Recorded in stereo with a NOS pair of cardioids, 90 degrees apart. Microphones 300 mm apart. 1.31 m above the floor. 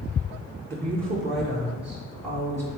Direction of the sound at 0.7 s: 40° right.